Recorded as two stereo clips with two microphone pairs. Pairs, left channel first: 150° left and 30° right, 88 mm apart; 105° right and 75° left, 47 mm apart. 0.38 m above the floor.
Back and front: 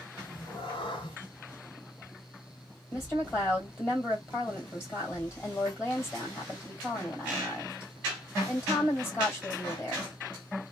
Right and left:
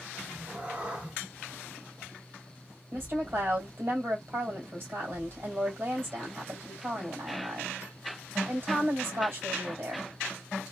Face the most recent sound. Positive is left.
turn(degrees=85)